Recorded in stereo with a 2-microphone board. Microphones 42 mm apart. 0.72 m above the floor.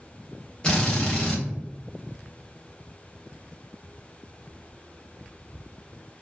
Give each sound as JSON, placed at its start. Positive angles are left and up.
{"t": 0.6, "sound": "a drill", "side_deg": 20, "distance_m": 1.2}